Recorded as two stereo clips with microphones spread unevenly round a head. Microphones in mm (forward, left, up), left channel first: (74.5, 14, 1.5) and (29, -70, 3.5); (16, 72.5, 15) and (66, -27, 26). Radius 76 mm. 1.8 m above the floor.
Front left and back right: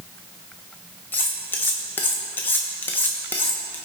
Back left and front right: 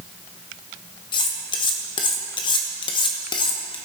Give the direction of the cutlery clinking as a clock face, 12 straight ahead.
8 o'clock.